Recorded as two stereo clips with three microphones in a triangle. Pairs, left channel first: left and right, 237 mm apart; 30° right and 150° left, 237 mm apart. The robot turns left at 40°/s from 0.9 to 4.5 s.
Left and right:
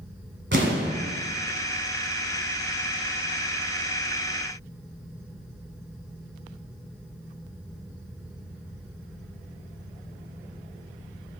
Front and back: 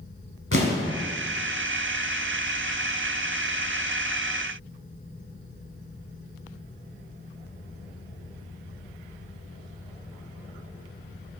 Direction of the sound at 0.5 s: 55° right.